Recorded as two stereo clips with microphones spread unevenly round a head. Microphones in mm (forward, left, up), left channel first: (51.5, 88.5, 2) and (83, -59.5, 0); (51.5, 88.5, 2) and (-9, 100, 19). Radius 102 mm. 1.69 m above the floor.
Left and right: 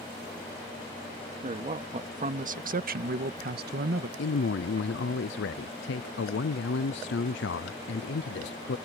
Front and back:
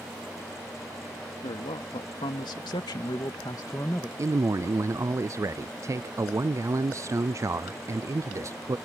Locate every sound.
1.4 s a man speaking: 30° right; by 4.1 s 100° right
4.2 s a man speaking: 125° left